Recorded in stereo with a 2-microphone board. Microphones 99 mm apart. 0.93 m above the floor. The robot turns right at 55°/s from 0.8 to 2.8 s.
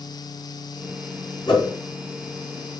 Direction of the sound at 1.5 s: 60° left (ahead or behind).